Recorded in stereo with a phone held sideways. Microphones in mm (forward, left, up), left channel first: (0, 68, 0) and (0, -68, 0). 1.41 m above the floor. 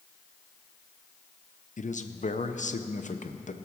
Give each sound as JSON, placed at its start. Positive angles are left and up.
{"t": 1.8, "sound": "a man speaking", "side_deg": 65, "distance_m": 0.7}